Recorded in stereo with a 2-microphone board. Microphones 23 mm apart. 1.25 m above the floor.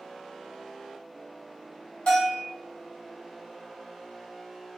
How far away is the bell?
About 1.8 m.